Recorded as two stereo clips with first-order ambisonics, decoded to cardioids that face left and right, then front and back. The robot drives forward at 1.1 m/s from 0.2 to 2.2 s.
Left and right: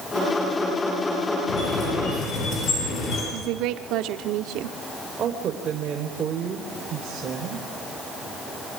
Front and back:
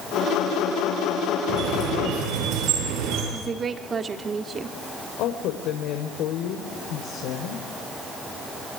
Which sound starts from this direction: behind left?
A squeak, at 1.5 s.